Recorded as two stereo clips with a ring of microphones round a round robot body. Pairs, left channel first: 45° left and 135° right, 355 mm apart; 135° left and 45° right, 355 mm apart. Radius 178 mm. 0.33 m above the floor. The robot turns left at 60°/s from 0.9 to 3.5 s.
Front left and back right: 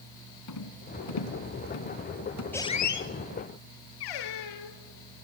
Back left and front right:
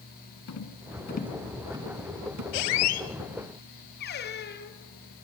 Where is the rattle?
85° left, 3 m; by 2.4 s 5° right, 3 m.